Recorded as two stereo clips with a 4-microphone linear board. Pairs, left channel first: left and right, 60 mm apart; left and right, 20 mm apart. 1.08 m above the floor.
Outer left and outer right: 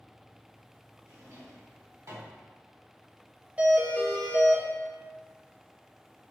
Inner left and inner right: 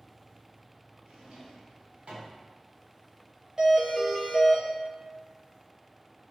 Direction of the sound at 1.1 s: 55° right (ahead or behind).